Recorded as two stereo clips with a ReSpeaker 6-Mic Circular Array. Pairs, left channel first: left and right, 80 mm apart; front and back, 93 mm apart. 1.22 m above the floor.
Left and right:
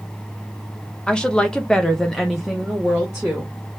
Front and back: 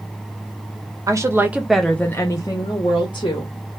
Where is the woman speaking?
160° left, 0.6 m; by 3.5 s 5° right, 1.1 m.